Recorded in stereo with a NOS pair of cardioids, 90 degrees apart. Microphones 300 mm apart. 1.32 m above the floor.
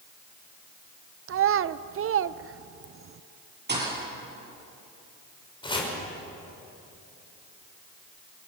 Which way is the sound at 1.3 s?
45° right.